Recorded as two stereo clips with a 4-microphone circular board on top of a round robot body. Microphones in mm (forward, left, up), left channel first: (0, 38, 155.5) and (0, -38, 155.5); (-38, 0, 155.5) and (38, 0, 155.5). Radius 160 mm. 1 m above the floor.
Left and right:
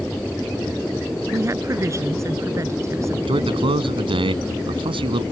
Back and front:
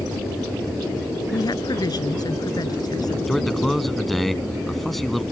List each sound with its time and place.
1.3 s a woman speaking: 145° right
3.3 s a man speaking: 90° right